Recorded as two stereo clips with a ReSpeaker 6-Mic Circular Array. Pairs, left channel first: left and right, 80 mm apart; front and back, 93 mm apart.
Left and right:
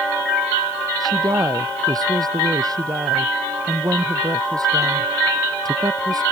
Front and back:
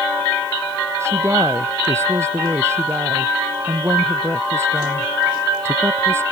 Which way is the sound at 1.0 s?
120° right.